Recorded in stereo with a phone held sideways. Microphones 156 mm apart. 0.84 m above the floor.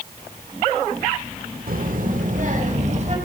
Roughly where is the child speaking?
Right.